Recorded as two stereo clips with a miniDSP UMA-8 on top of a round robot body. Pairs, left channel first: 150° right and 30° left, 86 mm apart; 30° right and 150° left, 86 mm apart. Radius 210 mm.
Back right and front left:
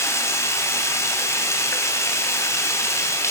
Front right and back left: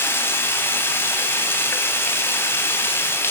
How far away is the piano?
No piano in this recording.